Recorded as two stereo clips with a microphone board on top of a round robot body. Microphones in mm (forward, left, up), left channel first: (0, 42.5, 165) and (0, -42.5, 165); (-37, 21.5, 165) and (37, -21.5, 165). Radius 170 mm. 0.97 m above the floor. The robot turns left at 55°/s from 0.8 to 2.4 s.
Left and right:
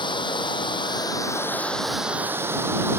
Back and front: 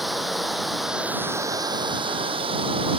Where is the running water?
60° left; by 3.0 s 25° right.